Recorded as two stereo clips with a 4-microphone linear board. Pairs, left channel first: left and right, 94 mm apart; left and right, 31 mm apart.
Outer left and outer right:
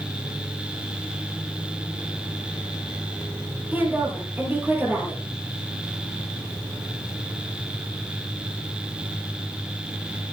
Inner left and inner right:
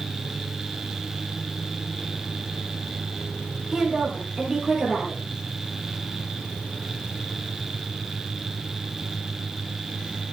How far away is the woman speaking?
About 6 m.